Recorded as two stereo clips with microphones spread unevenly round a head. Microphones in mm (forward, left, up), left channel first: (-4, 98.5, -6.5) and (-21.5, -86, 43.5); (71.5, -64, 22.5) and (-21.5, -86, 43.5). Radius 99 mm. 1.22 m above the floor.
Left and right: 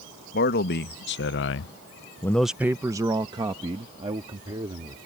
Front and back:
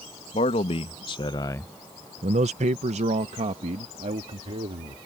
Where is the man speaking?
45° left; by 5.0 s 160° right.